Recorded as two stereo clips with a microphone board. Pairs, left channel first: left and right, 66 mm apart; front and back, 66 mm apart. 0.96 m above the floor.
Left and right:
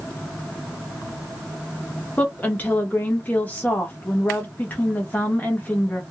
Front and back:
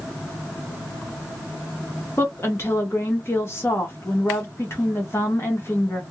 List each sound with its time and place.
2.2 s a woman speaking: 35° left, 1.1 m